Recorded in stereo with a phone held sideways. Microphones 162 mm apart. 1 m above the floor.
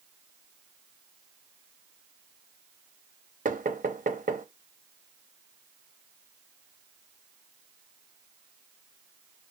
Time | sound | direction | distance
3.5 | knocking | 55° right (ahead or behind) | 0.8 m